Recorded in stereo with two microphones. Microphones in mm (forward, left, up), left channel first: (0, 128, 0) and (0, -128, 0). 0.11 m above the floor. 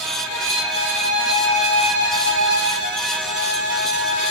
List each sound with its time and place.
0.2 s a violin: 55° left (ahead or behind), 3 m